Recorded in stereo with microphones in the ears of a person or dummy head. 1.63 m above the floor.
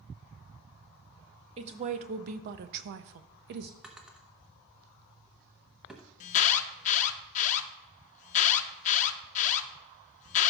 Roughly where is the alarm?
Left.